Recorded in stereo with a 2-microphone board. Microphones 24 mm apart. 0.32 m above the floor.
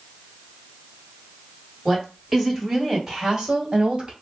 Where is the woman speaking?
15° left (ahead or behind), 1.7 m; by 4.1 s 35° right (ahead or behind), 1.7 m.